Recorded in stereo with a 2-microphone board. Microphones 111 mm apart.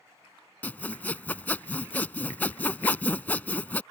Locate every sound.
0.6 s sawing: 15° left (ahead or behind)